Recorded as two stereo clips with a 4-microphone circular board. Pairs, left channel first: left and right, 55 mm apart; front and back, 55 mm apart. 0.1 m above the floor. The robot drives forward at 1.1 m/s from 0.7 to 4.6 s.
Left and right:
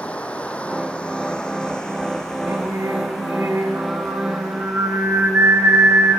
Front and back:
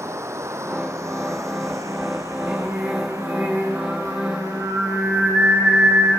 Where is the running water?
155° left, 2 m; by 6.2 s 175° left, 6 m.